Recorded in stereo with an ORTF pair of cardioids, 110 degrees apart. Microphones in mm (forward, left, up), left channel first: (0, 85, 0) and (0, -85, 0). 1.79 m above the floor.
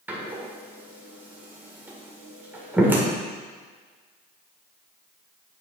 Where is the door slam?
10° right, 1.7 m.